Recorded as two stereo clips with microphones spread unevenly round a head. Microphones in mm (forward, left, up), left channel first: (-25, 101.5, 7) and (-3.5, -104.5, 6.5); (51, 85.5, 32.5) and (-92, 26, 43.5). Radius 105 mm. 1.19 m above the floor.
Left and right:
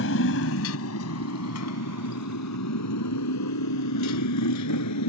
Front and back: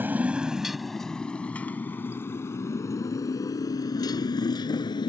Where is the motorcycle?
125° left; by 5.1 s 85° left.